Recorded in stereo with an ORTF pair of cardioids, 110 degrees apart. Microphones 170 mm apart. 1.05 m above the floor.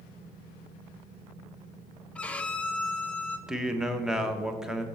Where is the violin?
5° left, 0.5 m.